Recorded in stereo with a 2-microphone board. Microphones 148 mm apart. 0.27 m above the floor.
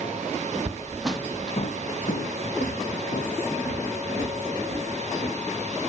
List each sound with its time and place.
0.6 s footsteps: 30° right (ahead or behind), 1.0 m; by 5.3 s 70° left (ahead or behind), 4 m